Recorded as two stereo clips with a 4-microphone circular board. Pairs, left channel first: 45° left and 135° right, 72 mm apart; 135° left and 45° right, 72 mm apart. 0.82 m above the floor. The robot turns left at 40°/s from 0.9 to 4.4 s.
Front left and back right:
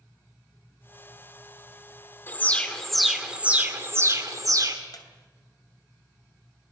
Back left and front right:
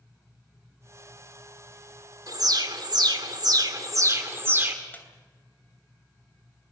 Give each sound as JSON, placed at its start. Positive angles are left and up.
{"t": 2.3, "sound": "an alarm", "azimuth_deg": -15, "distance_m": 2.5}
{"t": 4.9, "sound": "a squeak", "azimuth_deg": 70, "distance_m": 3.0}